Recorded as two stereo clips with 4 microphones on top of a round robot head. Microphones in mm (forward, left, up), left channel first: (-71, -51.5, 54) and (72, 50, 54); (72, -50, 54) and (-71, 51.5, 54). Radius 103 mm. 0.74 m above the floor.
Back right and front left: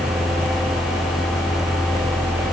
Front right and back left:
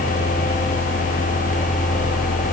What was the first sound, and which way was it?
Only background noise.